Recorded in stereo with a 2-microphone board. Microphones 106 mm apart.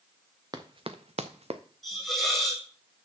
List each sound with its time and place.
0.5 s running footsteps: 40° right (ahead or behind), 1.0 m; by 1.6 s 60° right (ahead or behind), 0.8 m
1.8 s a hiss: 5° left (ahead or behind), 1.6 m